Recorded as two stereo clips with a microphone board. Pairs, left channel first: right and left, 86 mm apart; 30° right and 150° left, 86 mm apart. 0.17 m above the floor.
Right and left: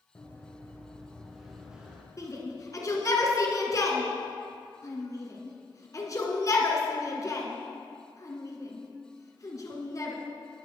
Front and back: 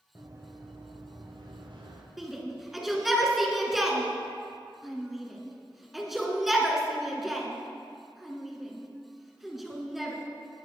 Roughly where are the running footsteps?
Behind.